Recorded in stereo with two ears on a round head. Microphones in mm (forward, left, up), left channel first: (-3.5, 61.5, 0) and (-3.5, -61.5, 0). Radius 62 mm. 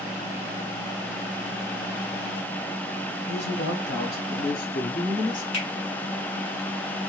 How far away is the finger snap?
About 2.5 m.